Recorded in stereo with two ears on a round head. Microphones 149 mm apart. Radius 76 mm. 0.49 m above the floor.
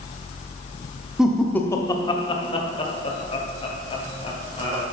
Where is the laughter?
5° right (ahead or behind), 0.9 m; by 4.8 s 35° left (ahead or behind), 3.5 m.